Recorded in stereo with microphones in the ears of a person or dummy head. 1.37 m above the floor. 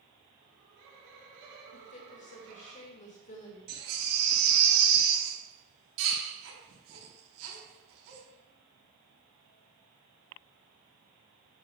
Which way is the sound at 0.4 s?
65° right (ahead or behind).